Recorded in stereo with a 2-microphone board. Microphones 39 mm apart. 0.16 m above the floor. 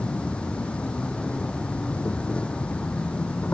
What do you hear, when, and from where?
0.0 s an insect: 30° left (ahead or behind)